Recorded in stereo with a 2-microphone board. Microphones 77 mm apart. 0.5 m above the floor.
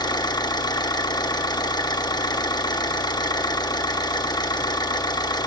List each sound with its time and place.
0.0 s an engine running: 75° left (ahead or behind), 0.9 m